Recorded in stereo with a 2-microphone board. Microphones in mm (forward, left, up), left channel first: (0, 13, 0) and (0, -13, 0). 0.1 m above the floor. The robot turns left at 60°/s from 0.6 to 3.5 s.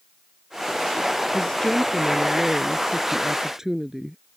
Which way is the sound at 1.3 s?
30° left (ahead or behind).